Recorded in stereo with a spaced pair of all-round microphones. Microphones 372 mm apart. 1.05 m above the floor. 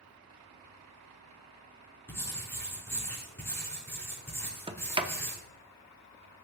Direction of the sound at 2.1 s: 5° left (ahead or behind).